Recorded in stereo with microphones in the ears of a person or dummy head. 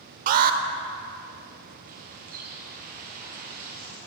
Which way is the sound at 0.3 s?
50° right (ahead or behind).